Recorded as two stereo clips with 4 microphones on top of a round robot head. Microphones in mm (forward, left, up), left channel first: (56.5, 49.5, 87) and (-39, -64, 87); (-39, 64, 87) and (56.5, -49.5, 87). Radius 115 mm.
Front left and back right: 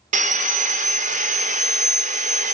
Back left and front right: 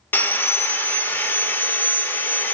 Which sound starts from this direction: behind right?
Sawing, at 0.1 s.